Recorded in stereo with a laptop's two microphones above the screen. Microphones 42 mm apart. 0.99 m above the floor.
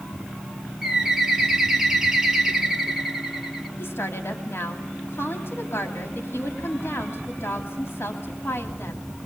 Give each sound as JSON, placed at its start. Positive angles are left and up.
{"t": 0.8, "sound": "a bird", "side_deg": -15, "distance_m": 2.0}
{"t": 3.8, "sound": "a woman speaking", "side_deg": 65, "distance_m": 2.5}